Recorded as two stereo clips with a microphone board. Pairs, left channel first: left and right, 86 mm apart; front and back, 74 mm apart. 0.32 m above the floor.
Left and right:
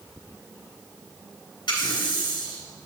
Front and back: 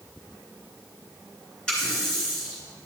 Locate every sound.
1.7 s a running tap: 80° left, 3 m